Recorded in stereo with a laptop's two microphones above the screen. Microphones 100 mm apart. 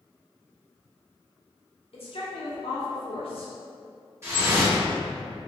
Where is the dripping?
25° right (ahead or behind), 1.3 m.